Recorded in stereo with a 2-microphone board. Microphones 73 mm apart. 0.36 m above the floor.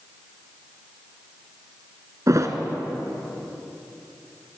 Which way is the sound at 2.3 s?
50° right (ahead or behind).